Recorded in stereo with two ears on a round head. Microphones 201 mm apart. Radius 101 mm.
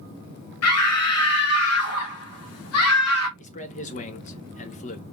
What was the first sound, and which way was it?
A scream, 70° left (ahead or behind).